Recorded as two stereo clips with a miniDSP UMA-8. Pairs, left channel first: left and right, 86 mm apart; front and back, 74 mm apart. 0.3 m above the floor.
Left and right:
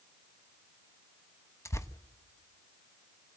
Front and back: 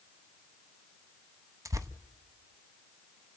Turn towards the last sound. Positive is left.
turn(degrees=145)